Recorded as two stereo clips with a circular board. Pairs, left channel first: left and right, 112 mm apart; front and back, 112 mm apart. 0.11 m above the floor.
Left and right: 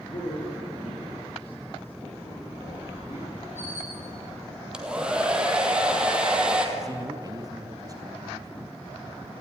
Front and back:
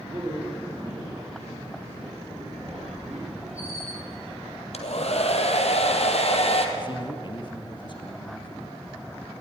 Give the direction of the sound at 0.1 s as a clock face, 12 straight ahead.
8 o'clock.